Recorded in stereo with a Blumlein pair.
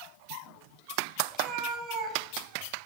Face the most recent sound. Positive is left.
turn(degrees=-35)